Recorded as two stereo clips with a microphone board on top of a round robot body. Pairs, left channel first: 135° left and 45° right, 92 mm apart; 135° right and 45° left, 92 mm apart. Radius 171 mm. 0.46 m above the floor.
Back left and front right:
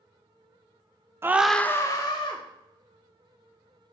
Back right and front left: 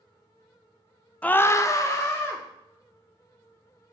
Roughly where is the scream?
Right.